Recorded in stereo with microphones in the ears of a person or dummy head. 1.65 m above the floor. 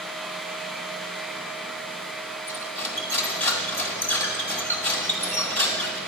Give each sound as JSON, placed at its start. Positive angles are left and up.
{"t": 2.5, "sound": "cutlery clinking", "side_deg": 5, "distance_m": 1.4}